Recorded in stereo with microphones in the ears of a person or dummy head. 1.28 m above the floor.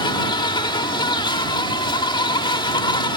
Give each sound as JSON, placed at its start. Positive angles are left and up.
{"t": 0.0, "sound": "an insect", "side_deg": 25}